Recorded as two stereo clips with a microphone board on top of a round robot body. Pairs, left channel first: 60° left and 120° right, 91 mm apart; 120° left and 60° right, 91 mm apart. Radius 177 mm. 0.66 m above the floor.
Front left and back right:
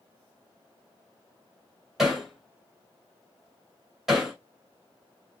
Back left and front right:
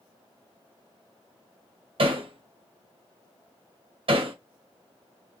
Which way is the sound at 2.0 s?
30° right.